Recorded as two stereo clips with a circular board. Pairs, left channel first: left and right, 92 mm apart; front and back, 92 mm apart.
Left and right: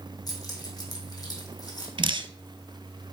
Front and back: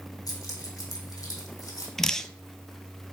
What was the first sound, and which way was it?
Keys jangling, 45° left.